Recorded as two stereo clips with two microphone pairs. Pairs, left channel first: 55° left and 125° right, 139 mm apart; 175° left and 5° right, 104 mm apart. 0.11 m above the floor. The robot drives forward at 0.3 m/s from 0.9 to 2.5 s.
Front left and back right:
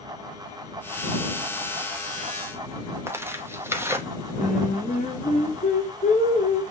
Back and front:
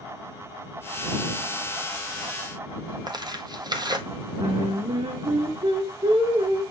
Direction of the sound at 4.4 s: 15° left.